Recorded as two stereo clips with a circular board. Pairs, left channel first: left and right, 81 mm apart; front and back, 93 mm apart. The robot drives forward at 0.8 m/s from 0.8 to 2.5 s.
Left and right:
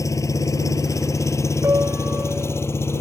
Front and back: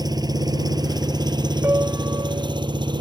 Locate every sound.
0.0 s an engine running: 135° left; by 3.0 s 145° left
1.6 s a piano: 125° right; by 2.7 s 150° right